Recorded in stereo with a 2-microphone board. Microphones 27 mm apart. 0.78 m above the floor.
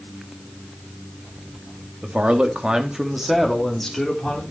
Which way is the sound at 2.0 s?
55° right (ahead or behind).